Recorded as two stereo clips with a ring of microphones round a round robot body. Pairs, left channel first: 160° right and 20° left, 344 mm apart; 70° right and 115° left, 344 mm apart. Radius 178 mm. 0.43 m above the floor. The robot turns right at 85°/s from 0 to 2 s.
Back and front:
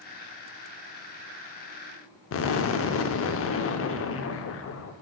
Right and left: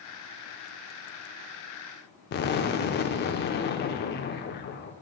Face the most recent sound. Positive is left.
turn(degrees=-120)